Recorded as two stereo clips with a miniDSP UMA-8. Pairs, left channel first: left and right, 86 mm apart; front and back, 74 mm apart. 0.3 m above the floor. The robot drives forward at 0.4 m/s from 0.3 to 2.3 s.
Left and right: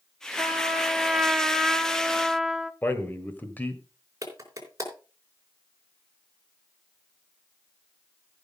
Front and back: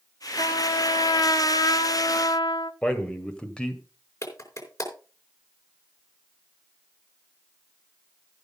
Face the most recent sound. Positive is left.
turn(degrees=-40)